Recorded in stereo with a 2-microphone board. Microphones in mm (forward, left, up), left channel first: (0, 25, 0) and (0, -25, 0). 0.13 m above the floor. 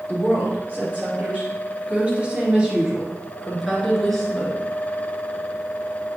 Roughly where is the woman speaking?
Right.